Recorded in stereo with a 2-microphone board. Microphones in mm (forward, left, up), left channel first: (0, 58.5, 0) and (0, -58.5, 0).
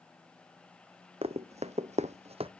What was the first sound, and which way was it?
Running footsteps, 60° right (ahead or behind).